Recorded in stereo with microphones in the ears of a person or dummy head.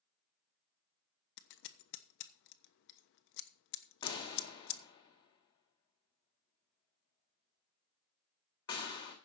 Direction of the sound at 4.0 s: 30° left (ahead or behind).